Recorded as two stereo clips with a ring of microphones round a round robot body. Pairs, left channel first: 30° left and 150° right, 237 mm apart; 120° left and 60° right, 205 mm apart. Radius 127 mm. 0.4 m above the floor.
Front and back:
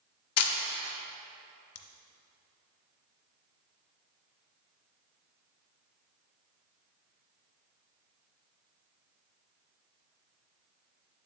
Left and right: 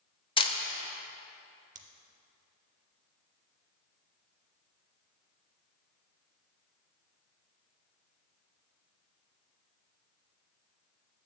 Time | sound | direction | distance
0.4 | a camera shutter | 55° left | 0.7 m
1.8 | scissors | straight ahead | 0.6 m